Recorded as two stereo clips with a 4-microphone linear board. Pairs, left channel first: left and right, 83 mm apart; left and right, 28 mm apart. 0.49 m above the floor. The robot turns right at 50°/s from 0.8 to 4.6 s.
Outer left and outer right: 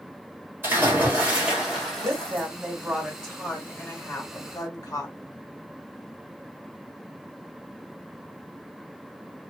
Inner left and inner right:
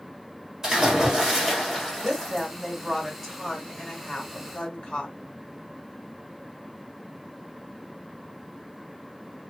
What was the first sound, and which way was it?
A splash, 50° right.